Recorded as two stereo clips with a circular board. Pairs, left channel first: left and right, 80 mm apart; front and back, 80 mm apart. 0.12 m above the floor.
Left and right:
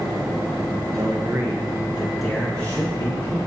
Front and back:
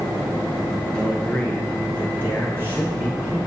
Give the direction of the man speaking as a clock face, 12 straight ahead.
3 o'clock.